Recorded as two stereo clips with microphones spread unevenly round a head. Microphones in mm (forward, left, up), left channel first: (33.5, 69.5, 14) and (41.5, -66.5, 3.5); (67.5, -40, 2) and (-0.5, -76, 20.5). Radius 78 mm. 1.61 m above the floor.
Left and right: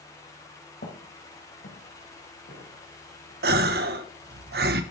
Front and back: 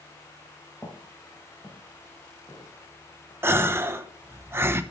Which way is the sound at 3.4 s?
105° right.